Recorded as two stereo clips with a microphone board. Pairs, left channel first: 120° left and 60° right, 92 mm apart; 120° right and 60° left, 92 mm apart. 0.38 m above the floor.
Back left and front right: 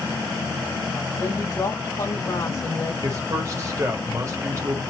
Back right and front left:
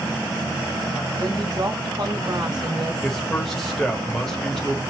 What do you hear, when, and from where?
1.2 s a woman speaking: 75° left, 1.3 m
3.0 s a man speaking: 40° right, 1.1 m